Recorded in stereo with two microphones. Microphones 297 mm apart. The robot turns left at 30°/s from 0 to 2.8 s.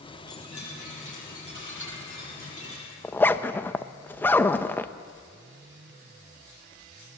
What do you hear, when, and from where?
0.3 s a chime: 120° left, 7.5 m; by 2.9 s 45° left, 7.5 m
3.0 s a zipper: 5° left (ahead or behind), 0.6 m